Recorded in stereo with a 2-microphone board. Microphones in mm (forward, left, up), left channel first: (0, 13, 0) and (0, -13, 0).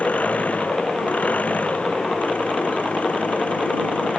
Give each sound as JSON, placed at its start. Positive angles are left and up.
{"t": 0.0, "sound": "an engine running", "side_deg": 65}